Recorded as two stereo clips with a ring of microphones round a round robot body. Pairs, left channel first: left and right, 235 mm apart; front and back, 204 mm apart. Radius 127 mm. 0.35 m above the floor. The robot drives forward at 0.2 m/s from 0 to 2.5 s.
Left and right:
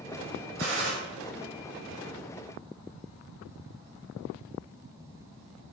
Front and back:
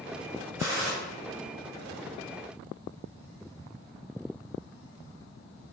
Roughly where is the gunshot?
Right.